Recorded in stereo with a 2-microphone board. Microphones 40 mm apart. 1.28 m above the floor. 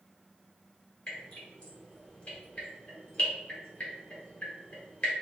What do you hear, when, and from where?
1.1 s dripping: 30° left (ahead or behind), 1.4 m